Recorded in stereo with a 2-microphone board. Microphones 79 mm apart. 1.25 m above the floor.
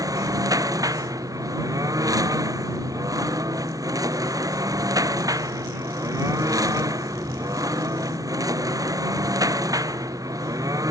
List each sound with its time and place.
0.0 s a lawn mower: 50° right (ahead or behind)